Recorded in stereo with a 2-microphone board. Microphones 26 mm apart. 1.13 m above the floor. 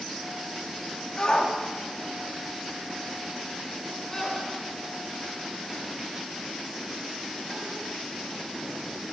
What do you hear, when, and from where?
1.2 s a shout: 30° left (ahead or behind), 2 m; by 9.1 s 15° left (ahead or behind), 9.5 m